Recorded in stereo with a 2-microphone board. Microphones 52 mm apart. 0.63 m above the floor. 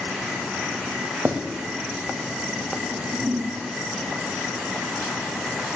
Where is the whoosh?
50° right (ahead or behind), 0.7 m.